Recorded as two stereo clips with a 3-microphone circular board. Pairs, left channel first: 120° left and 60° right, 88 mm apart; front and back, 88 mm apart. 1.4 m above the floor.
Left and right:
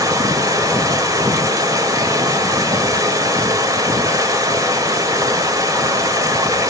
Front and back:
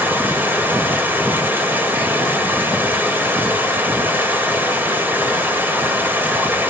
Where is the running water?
110° right, 3 m.